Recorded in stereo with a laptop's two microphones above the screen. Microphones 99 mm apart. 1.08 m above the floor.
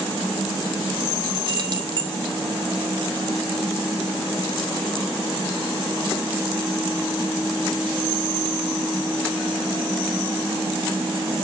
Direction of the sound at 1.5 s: 50° right (ahead or behind).